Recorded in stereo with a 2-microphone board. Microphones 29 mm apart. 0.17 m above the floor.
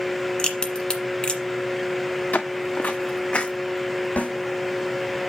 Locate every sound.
0.4 s a crack: 35° left (ahead or behind), 1.6 m
2.3 s footsteps: 65° left (ahead or behind), 1.2 m; by 3.5 s 35° left (ahead or behind), 0.8 m
4.2 s a snare drum: 55° left (ahead or behind), 6 m